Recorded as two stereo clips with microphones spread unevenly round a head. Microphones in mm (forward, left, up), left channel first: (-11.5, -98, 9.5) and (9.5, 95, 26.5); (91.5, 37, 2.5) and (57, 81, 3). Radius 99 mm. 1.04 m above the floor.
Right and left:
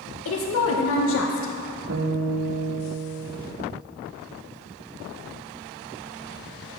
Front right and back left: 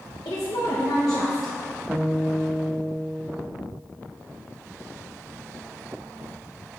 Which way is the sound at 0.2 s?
90° right.